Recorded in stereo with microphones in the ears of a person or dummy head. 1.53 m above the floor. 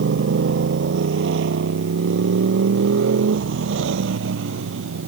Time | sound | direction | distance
0.0 | a motorcycle | 70° right (ahead or behind) | ?